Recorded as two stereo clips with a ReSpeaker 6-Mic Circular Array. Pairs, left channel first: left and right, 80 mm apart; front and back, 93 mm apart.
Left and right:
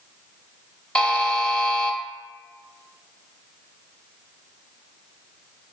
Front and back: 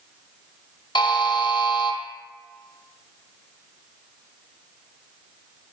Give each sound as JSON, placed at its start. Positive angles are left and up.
{"t": 0.9, "sound": "a buzzer", "azimuth_deg": 15, "distance_m": 0.6}